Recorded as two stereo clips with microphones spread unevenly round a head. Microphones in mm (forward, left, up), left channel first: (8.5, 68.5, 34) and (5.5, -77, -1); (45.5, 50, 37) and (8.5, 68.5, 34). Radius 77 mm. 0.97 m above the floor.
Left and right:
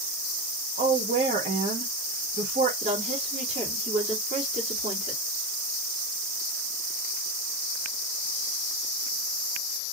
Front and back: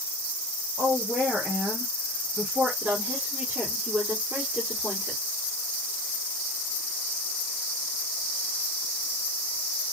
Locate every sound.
0.8 s a woman speaking: 125° right, 1.4 m
2.8 s a woman speaking: 140° right, 1.9 m